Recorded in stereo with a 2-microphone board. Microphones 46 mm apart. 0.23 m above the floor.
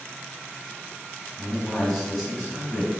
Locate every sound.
1.4 s a man speaking: 5° left (ahead or behind), 1.6 m